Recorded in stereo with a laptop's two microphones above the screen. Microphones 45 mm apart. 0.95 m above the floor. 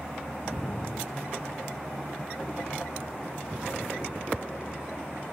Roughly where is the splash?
Left.